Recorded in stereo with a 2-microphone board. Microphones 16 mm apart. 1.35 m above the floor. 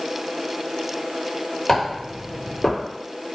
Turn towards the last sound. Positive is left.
turn(degrees=20)  # may be behind; listen again after turning